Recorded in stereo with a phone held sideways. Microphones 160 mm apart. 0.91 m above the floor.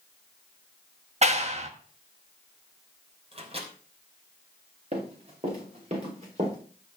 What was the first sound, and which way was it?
A clap, 45° right (ahead or behind).